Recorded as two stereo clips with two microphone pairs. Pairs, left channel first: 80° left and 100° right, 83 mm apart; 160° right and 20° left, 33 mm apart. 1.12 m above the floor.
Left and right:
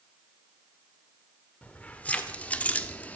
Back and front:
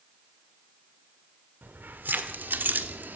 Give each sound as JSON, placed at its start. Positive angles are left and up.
{"t": 1.6, "sound": "keys jangling", "azimuth_deg": 10, "distance_m": 2.5}